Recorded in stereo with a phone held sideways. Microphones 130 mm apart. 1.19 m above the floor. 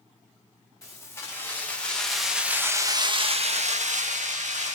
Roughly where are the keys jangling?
Left.